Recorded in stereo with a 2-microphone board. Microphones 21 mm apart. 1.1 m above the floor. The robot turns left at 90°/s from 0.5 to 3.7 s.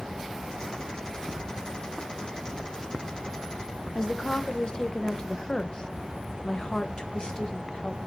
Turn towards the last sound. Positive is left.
turn(degrees=35)  # may be behind; listen again after turning